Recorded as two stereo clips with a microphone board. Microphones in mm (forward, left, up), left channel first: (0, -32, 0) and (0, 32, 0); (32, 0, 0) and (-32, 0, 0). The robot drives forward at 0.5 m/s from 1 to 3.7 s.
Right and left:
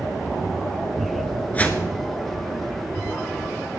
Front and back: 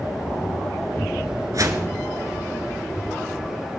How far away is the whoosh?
About 1.2 m.